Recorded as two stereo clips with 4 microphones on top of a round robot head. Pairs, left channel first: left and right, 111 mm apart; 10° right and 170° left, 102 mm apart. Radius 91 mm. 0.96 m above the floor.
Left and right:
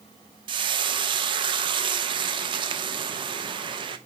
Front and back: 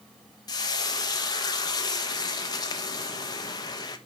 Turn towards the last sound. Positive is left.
turn(degrees=-55)